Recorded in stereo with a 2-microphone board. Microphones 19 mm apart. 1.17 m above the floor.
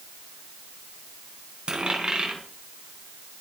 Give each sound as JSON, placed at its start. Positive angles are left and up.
{"t": 1.7, "sound": "a dropped coin", "side_deg": -50, "distance_m": 4.5}